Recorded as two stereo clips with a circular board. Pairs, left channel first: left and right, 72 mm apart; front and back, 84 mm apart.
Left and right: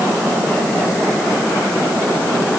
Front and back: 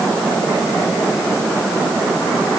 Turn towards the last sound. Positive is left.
No sound to turn to.